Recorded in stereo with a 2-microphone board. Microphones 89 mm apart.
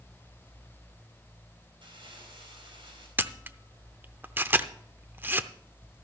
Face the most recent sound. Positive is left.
turn(degrees=-25)  # may be behind; listen again after turning